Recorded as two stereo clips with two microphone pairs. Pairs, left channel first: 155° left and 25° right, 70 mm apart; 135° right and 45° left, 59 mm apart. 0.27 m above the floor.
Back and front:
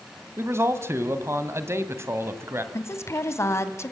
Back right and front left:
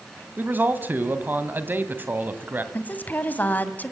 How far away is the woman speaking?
About 1.7 m.